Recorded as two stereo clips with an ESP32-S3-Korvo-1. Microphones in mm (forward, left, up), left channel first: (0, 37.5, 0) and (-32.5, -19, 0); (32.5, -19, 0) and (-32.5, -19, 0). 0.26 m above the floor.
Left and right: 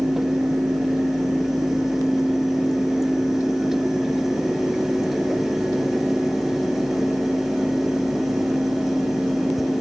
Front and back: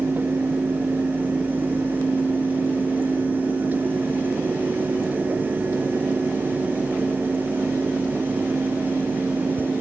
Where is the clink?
I don't hear a clink.